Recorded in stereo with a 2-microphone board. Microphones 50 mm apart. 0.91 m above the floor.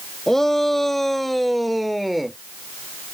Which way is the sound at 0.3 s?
5° left (ahead or behind).